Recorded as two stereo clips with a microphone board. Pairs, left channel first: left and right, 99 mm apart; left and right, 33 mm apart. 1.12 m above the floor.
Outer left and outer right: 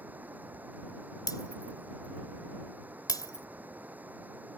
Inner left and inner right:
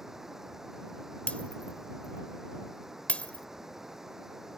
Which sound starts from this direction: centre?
Running water, at 0.0 s.